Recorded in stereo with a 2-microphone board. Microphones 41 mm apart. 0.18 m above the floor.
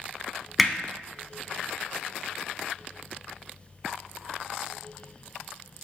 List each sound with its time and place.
0.6 s hammering: centre (ahead or behind), 0.6 m